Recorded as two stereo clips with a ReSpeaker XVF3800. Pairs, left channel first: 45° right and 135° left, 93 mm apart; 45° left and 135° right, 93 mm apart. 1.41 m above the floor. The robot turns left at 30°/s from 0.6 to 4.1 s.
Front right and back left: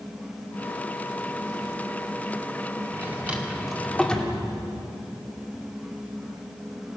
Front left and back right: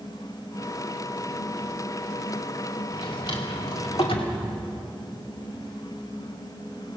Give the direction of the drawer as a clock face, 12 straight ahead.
10 o'clock.